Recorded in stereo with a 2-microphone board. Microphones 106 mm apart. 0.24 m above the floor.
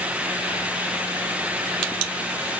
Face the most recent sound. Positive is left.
No sound to turn to.